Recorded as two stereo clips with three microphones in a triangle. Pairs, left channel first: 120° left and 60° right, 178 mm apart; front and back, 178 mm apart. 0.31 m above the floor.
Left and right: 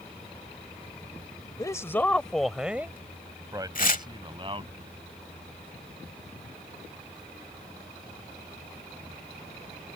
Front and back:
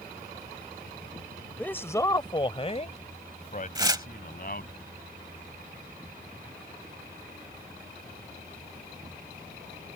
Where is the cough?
I don't hear a cough.